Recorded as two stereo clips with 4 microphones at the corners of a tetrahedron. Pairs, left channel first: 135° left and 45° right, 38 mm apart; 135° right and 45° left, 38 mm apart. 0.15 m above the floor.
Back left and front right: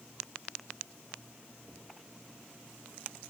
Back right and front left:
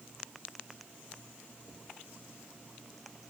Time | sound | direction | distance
1.6 | knocking | 160° right | 9.5 m